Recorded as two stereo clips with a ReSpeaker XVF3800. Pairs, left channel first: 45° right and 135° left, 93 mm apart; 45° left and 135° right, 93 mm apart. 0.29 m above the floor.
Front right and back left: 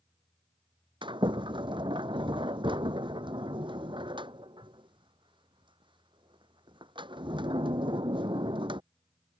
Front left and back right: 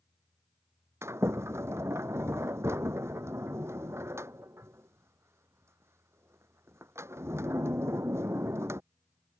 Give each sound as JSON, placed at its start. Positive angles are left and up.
{"t": 1.0, "sound": "a sliding door", "azimuth_deg": 165}